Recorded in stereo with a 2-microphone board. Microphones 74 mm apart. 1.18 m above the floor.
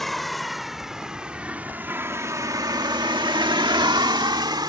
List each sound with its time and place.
0.0 s a vehicle: 5° left (ahead or behind); by 4.7 s 65° right (ahead or behind)